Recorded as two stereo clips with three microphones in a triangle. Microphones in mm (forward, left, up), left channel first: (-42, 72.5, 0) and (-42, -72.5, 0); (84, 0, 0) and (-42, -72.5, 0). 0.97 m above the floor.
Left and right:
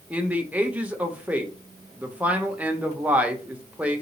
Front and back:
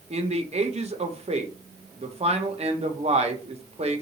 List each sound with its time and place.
0.1 s a man speaking: 165° right, 0.8 m